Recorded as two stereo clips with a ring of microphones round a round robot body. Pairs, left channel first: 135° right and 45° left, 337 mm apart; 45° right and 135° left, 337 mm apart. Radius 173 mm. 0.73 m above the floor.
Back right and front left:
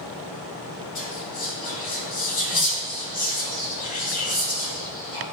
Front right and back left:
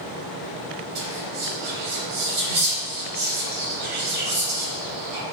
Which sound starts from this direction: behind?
Whispering, at 0.9 s.